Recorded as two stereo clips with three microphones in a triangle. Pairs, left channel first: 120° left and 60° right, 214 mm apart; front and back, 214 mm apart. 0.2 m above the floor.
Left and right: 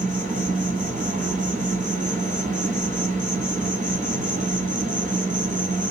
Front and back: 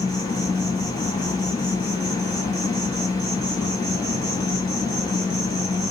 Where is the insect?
60° right, 1.4 m.